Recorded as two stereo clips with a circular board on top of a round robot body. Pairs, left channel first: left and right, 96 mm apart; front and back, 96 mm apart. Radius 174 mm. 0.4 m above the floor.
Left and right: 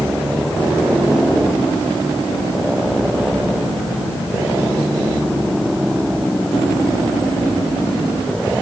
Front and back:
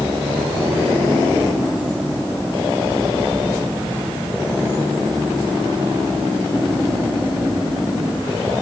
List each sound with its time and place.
Only background noise.